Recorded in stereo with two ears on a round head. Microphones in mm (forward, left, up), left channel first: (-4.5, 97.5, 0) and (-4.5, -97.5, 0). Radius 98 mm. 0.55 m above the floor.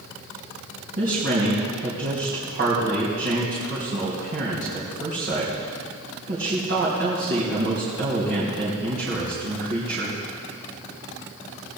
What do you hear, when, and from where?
1.0 s a woman speaking: 50° right (ahead or behind), 3.5 m